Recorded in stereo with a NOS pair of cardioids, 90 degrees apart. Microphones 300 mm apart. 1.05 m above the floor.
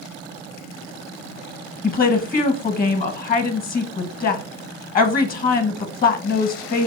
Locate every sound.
1.8 s a woman speaking: 30° left, 0.8 m